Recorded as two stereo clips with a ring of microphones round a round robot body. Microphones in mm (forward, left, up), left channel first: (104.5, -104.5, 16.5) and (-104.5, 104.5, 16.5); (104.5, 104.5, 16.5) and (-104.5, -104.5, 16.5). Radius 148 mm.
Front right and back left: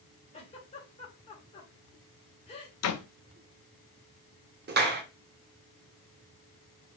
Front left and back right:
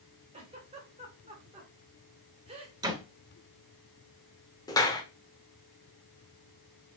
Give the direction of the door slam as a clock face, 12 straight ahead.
2 o'clock.